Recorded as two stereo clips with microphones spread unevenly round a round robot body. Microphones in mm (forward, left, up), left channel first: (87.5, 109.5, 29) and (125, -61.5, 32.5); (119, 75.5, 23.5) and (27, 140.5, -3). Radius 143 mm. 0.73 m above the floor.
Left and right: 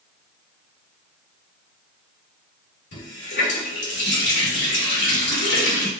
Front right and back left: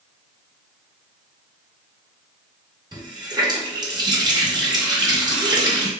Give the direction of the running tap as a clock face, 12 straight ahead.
9 o'clock.